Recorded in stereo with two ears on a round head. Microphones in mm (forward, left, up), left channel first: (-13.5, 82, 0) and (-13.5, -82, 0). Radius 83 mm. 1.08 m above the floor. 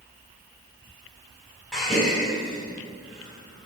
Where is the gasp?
Centre (ahead or behind), 2.5 m.